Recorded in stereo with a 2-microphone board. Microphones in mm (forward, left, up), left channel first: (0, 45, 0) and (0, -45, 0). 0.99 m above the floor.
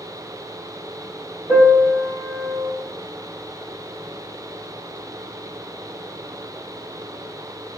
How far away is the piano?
About 2 m.